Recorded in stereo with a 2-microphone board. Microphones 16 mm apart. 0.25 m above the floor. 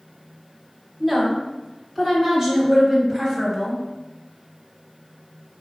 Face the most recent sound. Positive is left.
turn(degrees=-30)  # may be behind; listen again after turning